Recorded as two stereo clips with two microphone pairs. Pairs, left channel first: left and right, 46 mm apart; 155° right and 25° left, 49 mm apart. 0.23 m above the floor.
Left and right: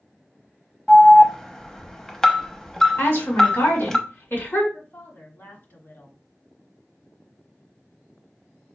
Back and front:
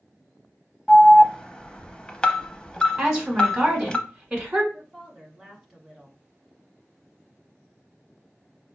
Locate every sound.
0.9 s an alarm: 155° left, 0.6 m
3.0 s a woman speaking: 95° left, 2.5 m
4.7 s a woman speaking: 110° left, 1.8 m